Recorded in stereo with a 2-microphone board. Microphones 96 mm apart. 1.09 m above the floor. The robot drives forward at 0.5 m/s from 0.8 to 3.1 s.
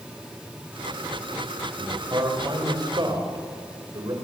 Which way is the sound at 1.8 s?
40° right (ahead or behind).